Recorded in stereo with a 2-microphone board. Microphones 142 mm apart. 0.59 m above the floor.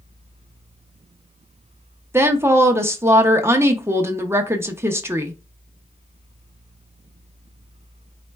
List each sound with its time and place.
2.1 s a woman speaking: 20° right (ahead or behind), 0.6 m